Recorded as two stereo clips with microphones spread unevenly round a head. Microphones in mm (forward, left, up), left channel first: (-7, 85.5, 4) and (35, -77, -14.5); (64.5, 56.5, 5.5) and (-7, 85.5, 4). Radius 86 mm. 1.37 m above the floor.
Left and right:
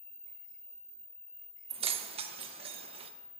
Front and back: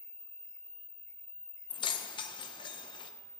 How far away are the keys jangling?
About 0.7 m.